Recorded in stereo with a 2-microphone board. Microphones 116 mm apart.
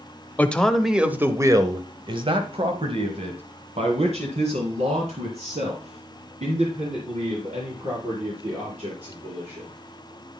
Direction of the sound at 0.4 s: 15° left (ahead or behind).